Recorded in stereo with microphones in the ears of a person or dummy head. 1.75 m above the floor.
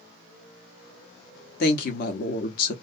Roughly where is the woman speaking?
Left.